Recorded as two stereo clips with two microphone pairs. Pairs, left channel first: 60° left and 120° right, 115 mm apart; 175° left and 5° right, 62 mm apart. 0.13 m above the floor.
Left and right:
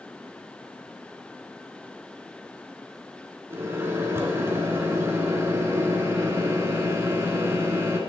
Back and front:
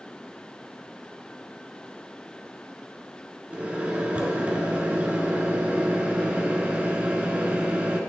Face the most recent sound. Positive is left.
turn(degrees=-65)